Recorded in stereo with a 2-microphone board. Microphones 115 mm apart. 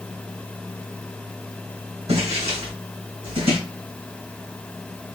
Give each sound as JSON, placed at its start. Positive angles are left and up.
{"t": 2.1, "sound": "footsteps", "side_deg": -75, "distance_m": 2.5}